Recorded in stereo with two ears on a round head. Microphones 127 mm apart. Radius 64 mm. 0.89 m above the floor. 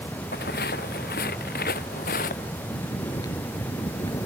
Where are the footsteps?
75° left (ahead or behind); by 2.5 s 65° left (ahead or behind).